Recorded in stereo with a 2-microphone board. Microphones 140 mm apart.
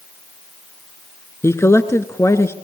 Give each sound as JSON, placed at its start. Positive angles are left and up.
{"t": 1.4, "sound": "a man speaking", "side_deg": 20, "distance_m": 1.5}